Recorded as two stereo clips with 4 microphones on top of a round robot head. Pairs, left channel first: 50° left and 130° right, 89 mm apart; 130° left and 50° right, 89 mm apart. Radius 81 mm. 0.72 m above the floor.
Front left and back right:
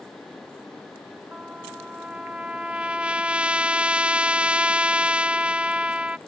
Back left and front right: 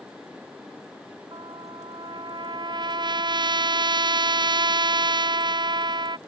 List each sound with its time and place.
1.3 s a trumpet: 55° right